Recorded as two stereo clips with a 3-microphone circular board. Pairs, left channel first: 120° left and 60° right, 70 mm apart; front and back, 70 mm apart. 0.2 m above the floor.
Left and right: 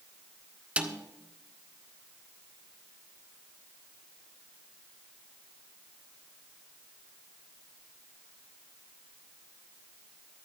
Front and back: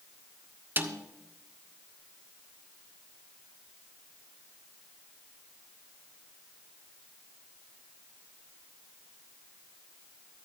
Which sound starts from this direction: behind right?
A snare drum, at 0.8 s.